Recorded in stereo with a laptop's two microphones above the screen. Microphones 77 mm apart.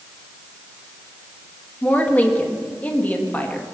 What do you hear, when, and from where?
1.8 s a woman speaking: 20° left (ahead or behind), 1.5 m